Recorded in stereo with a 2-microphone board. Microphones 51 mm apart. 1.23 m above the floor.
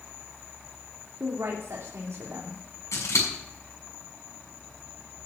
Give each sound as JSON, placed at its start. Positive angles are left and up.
{"t": 1.2, "sound": "a woman speaking", "side_deg": -80, "distance_m": 3.0}
{"t": 2.9, "sound": "scissors", "side_deg": 80, "distance_m": 6.5}